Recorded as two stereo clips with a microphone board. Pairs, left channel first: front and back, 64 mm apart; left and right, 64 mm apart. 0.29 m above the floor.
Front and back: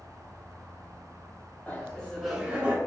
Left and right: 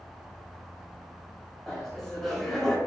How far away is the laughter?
About 0.9 m.